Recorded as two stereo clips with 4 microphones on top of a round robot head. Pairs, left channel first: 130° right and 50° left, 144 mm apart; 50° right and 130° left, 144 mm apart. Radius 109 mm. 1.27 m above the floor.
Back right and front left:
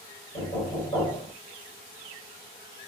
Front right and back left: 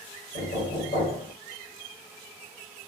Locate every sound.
0.3 s knocking: 70° right, 3.5 m